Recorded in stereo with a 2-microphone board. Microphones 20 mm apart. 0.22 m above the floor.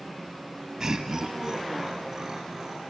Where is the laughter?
30° right (ahead or behind), 1.3 m; by 2.8 s 20° right (ahead or behind), 3 m.